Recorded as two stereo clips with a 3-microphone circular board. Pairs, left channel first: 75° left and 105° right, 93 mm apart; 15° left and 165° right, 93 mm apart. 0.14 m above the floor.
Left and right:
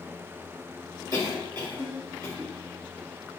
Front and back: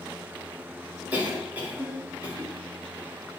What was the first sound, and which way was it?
A cough, 100° right.